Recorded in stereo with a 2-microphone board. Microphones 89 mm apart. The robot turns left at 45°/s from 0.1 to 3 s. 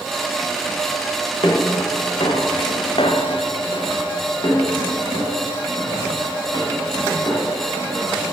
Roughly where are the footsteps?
Left.